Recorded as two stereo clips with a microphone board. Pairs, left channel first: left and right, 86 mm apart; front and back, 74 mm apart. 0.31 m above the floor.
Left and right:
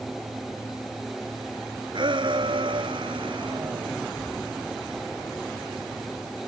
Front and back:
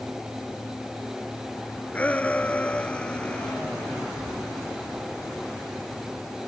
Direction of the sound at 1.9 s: 70° right.